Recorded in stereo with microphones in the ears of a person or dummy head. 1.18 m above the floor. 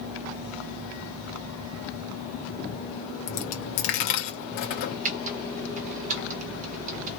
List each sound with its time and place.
3.3 s a dropped coin: 45° left (ahead or behind), 0.7 m
5.0 s typing on a keyboard: 40° right (ahead or behind), 1.1 m